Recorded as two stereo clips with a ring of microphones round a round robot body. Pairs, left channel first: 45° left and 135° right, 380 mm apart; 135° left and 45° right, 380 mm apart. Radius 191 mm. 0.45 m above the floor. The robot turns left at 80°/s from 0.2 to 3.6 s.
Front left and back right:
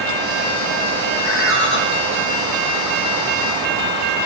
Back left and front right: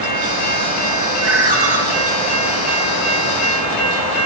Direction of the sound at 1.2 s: 45° left.